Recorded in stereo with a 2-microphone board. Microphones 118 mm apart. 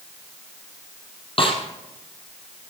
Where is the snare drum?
50° left (ahead or behind), 3 m.